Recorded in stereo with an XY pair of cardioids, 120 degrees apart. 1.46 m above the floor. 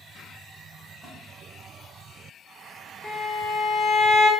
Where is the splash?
Straight ahead, 1.3 m.